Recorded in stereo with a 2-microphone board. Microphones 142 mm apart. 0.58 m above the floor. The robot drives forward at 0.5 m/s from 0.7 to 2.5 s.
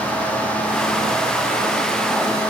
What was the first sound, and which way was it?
Only background noise.